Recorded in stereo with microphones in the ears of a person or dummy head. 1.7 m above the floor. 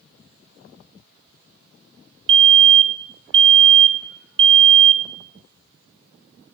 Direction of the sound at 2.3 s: 25° right (ahead or behind).